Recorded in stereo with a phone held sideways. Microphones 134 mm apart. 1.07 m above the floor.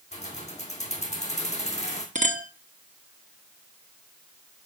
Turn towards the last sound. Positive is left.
turn(degrees=-65)  # may be behind; listen again after turning